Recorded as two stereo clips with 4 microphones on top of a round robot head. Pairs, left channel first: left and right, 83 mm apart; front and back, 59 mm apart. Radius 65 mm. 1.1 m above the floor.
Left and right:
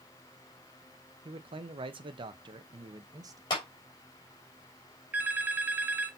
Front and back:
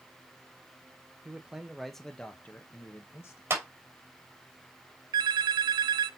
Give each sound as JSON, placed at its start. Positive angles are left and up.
{"t": 1.2, "sound": "a man speaking", "azimuth_deg": -105, "distance_m": 1.1}
{"t": 3.5, "sound": "a clap", "azimuth_deg": 135, "distance_m": 2.5}
{"t": 5.1, "sound": "a phone ringing", "azimuth_deg": -165, "distance_m": 0.6}